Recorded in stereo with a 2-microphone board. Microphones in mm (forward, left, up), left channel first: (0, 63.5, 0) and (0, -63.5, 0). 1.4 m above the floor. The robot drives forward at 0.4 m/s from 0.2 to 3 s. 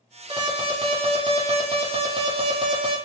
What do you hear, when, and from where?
0.3 s an alarm: 40° right (ahead or behind), 1.0 m